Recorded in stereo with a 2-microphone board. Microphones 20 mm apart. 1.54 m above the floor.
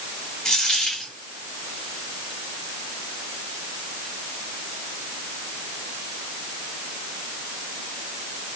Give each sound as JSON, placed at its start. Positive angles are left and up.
{"t": 0.5, "sound": "a dropped coin", "side_deg": 50, "distance_m": 3.0}